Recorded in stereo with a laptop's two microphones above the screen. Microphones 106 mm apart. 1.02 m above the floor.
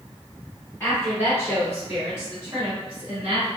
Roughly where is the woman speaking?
Centre.